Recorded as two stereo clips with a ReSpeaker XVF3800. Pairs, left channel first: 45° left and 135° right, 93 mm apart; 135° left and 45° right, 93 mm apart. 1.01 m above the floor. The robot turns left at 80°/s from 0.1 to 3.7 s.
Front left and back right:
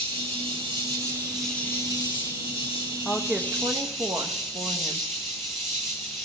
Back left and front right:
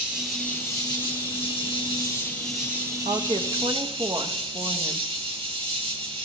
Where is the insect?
115° right, 2.5 m; by 6.2 s 45° right, 2.5 m.